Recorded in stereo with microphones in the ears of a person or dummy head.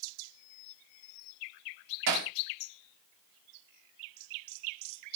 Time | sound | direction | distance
2.1 | hammering | 55° right (ahead or behind) | 1.4 m